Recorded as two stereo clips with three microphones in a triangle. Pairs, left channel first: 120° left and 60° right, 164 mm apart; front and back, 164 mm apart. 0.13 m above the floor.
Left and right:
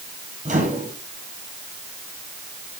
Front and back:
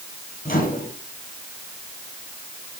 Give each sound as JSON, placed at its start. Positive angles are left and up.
{"t": 0.5, "sound": "a microwave", "azimuth_deg": -30, "distance_m": 3.0}